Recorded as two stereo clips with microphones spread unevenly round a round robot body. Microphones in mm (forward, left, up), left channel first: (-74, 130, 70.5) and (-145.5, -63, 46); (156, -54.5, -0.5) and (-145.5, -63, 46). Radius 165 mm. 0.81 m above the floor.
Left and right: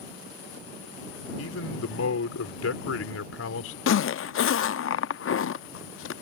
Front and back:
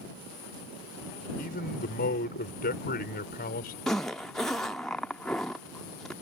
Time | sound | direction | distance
1.4 | a man speaking | 65° left | ?
3.9 | a zipper | 90° left | ?